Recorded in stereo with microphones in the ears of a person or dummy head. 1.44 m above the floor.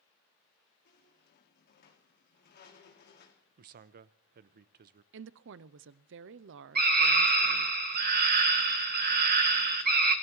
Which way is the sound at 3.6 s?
50° right (ahead or behind).